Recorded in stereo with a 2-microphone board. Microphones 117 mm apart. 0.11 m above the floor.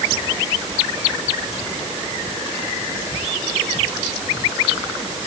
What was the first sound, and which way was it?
Only background noise.